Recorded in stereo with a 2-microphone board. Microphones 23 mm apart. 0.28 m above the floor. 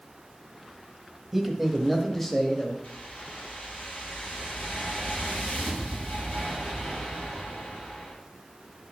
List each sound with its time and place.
1.3 s a man speaking: 10° right (ahead or behind), 1.3 m; by 2.7 s 25° left (ahead or behind), 1.3 m
2.8 s a whoosh: 75° left (ahead or behind), 2.5 m